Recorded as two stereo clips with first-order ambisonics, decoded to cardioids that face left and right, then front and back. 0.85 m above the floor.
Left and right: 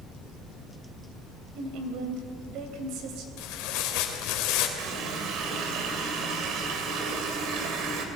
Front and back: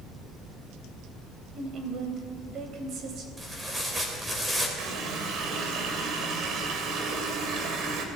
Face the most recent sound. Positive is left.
turn(degrees=-130)